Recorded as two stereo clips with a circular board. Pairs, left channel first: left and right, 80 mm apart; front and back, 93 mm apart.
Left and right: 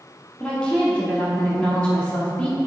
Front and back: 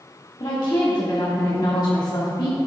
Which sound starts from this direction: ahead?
A woman speaking, at 0.4 s.